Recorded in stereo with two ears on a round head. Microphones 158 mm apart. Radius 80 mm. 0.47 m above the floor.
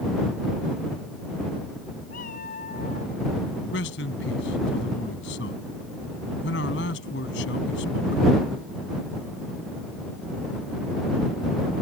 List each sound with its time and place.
2.1 s a cat meowing: 50° left (ahead or behind); by 3.1 s 40° left (ahead or behind)
3.7 s a man speaking: 75° left (ahead or behind)